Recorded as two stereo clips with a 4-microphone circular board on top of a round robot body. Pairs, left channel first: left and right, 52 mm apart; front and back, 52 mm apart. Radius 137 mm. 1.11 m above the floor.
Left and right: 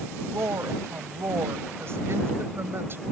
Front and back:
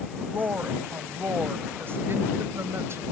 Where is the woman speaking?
125° right; by 3.0 s 140° right.